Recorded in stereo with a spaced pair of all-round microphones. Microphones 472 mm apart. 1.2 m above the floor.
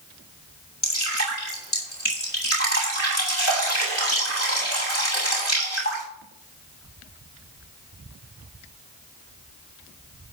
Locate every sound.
0.8 s dripping: 30° left (ahead or behind), 7 m